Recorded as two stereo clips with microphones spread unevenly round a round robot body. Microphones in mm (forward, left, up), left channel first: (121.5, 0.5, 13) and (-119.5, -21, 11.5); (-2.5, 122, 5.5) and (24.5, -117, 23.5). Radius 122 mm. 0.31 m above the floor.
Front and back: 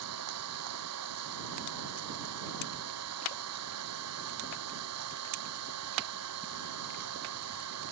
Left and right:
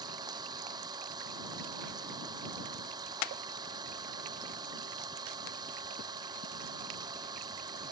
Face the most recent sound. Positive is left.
turn(degrees=-155)